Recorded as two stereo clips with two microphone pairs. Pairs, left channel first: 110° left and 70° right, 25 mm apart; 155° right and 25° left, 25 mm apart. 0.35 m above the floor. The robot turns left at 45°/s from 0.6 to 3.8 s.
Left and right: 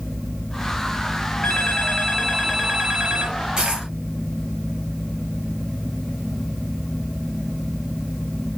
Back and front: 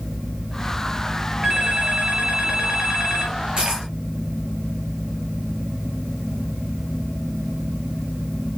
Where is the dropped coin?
15° right, 2 m; by 3.9 s 25° right, 2 m.